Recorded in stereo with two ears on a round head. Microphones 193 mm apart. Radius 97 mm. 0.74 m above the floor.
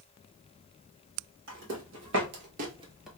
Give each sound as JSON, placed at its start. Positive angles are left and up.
{"t": 1.5, "sound": "footsteps", "side_deg": -65, "distance_m": 2.0}